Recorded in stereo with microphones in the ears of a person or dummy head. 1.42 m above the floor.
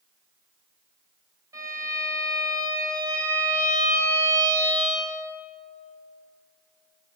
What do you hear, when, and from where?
1.5 s a violin: 20° right (ahead or behind), 3.5 m